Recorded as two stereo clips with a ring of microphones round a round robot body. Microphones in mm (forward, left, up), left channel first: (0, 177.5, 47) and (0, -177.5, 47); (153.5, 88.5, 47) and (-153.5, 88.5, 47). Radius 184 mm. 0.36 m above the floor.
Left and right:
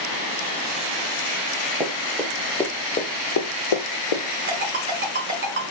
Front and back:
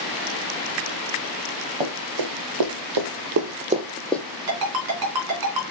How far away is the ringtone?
About 2.5 m.